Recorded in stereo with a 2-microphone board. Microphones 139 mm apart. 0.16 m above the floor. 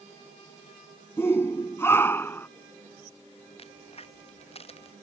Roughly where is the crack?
Left.